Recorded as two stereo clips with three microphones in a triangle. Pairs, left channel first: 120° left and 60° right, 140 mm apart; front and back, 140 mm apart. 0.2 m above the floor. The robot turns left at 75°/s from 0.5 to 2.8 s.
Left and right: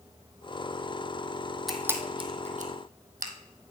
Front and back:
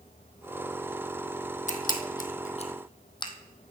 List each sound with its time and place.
1.7 s a camera shutter: 30° left, 1.2 m; by 3.3 s 55° right, 1.2 m